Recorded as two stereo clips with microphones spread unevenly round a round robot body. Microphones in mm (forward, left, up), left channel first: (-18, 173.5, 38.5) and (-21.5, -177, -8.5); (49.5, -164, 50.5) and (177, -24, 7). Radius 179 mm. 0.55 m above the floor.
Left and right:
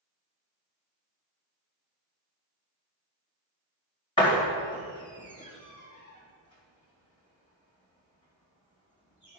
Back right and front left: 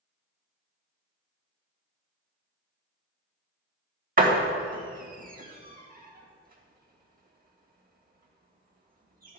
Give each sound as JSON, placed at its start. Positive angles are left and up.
{"t": 4.2, "sound": "a door slam", "azimuth_deg": 10, "distance_m": 2.5}